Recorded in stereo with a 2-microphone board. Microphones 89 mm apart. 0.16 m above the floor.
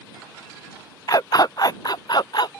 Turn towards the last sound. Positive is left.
turn(degrees=60)  # may be behind; listen again after turning